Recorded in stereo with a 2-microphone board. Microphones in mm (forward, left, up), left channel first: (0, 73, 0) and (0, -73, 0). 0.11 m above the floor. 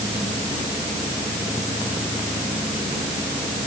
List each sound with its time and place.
Only background noise.